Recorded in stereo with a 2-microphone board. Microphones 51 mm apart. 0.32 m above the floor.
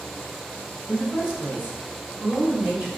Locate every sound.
0.9 s a woman speaking: 20° right (ahead or behind), 1.7 m; by 2.9 s 40° right (ahead or behind), 1.8 m